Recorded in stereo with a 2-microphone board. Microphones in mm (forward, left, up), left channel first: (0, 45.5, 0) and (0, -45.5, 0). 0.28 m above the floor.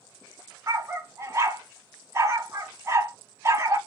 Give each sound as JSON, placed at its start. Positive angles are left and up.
{"t": 0.7, "sound": "a dog barking", "side_deg": -30, "distance_m": 0.7}